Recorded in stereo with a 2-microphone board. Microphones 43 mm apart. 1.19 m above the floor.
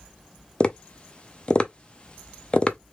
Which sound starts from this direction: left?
Tapping, at 0.6 s.